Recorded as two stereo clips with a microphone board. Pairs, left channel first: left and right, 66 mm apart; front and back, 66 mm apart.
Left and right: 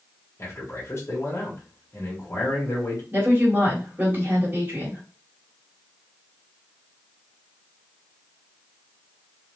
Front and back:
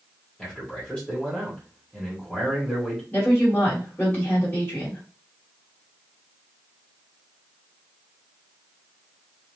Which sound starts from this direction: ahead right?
A woman speaking, at 3.1 s.